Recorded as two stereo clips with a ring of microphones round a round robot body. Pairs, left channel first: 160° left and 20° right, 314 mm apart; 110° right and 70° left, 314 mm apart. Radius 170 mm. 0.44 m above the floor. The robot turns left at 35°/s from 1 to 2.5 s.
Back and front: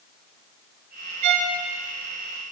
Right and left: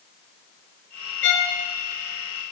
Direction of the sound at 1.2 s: 55° right.